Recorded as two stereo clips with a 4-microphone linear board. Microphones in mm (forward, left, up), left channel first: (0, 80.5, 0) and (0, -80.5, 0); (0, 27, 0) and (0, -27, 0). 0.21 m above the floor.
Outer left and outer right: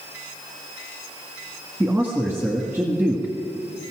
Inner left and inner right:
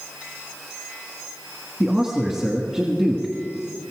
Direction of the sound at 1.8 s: 15° right (ahead or behind).